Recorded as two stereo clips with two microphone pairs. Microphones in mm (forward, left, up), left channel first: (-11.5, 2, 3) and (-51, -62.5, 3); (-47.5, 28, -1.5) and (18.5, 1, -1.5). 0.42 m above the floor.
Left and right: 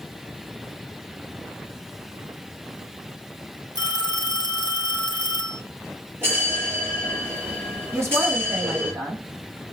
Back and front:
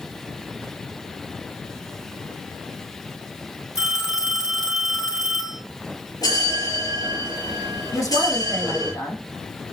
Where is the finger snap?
I don't hear a finger snap.